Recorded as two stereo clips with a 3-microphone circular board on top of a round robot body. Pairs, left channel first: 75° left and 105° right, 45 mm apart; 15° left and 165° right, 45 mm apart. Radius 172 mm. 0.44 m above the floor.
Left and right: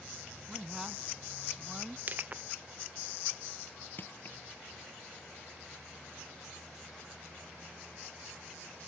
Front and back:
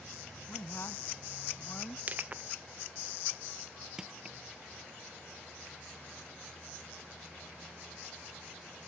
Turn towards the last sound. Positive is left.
turn(degrees=120)